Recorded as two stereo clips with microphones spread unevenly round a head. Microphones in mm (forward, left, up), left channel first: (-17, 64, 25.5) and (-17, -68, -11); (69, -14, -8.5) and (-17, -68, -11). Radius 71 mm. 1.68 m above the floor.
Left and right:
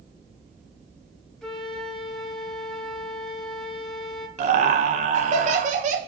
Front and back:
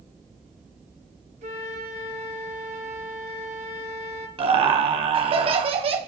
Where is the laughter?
120° right, 1.3 m.